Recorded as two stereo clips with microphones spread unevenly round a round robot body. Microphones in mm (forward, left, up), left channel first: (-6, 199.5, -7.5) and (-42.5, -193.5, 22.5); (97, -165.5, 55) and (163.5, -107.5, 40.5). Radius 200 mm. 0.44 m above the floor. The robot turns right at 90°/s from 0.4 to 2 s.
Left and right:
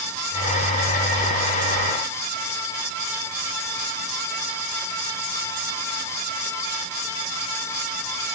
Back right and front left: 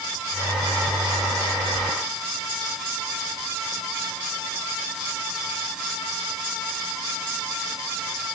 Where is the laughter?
No laughter in this recording.